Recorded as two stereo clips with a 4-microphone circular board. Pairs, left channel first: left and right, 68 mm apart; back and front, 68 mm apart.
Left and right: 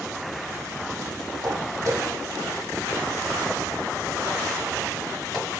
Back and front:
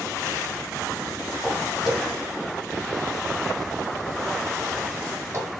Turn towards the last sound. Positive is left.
turn(degrees=10)